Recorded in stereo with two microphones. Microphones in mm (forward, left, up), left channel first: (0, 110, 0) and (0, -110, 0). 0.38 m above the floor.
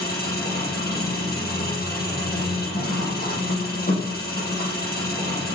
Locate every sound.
0.0 s an engine running: 45° left (ahead or behind), 10 m